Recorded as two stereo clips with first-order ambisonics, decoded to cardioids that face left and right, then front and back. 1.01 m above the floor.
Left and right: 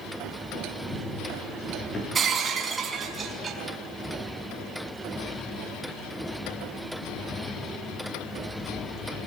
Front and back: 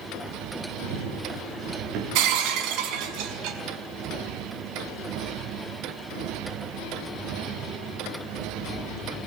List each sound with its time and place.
0.8 s running footsteps: 165° left, 9.5 m; by 2.0 s 155° left, 9.5 m
2.1 s breaking glass: 160° right, 5 m